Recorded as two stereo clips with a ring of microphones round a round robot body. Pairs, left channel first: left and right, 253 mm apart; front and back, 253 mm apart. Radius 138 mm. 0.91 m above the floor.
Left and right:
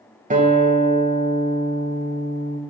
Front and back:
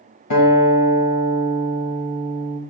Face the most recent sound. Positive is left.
turn(degrees=-30)